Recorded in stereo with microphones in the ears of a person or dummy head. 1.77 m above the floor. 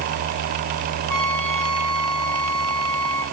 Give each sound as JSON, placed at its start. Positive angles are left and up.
{"t": 1.1, "sound": "a trumpet", "side_deg": 15, "distance_m": 8.0}